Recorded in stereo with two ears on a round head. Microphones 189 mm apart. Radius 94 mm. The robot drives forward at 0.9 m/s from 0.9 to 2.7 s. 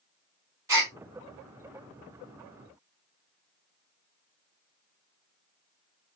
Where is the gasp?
15° right (ahead or behind), 1.8 m.